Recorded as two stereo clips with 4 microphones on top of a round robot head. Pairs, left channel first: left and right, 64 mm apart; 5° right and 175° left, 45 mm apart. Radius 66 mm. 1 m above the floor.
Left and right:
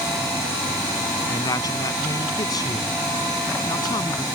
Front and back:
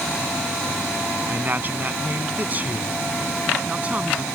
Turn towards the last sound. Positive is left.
turn(degrees=115)